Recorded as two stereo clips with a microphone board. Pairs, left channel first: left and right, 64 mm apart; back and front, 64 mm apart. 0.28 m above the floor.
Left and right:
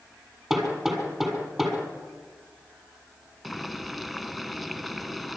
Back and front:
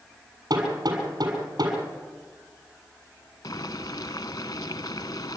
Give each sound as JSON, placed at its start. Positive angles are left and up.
{"t": 0.5, "sound": "hammering", "azimuth_deg": -10, "distance_m": 7.0}
{"t": 3.4, "sound": "boiling", "azimuth_deg": 180, "distance_m": 0.8}